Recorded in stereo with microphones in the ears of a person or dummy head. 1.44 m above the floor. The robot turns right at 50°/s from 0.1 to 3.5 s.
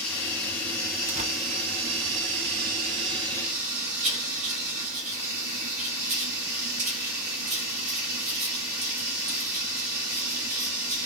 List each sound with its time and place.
0.0 s running water: 175° left, 1.5 m; by 11.1 s 15° right, 1.5 m
1.1 s tearing paper: 40° right (ahead or behind), 0.7 m; by 1.3 s 30° right (ahead or behind), 0.7 m
4.0 s writing: 40° right (ahead or behind), 1.4 m